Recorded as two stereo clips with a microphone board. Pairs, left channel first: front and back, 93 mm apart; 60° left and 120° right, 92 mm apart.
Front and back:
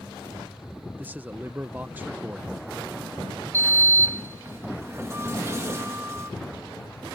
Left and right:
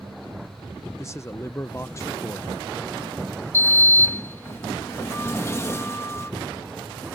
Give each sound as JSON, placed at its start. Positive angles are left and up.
{"t": 1.0, "sound": "a man speaking", "azimuth_deg": 115}
{"t": 3.5, "sound": "a sliding door", "azimuth_deg": 120}